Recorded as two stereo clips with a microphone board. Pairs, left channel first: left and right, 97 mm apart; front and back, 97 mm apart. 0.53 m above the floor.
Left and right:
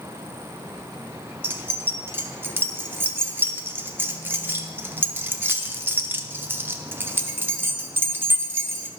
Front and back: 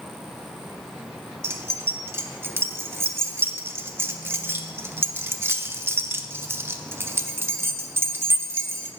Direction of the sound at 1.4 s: 140° right.